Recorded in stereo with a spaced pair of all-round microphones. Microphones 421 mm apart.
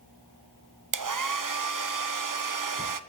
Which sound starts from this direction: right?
A hair dryer, at 0.9 s.